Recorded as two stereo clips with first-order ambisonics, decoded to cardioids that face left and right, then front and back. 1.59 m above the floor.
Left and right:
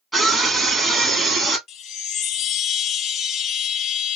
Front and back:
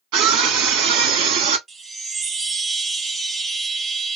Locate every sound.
0.1 s a scream: 175° right, 2.5 m
1.7 s a chime: 115° left, 0.6 m